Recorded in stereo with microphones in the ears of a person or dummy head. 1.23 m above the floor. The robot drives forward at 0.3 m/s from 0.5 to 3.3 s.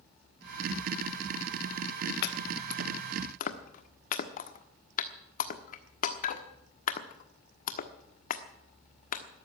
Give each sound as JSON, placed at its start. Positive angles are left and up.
{"t": 2.2, "sound": "chopping", "side_deg": 60, "distance_m": 1.1}